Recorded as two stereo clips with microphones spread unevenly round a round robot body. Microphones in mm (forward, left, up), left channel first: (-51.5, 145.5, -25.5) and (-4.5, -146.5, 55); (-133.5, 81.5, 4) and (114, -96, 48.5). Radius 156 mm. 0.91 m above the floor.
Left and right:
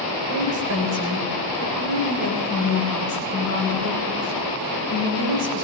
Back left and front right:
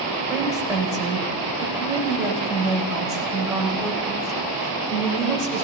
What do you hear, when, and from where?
0.3 s a woman speaking: 120° right, 4.5 m